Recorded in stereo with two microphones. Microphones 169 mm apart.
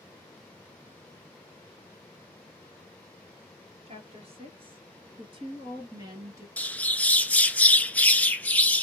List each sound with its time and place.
3.9 s a woman speaking: 35° right (ahead or behind), 2 m; by 6.5 s 20° right (ahead or behind), 1.5 m
6.6 s a bird: 10° left (ahead or behind), 0.5 m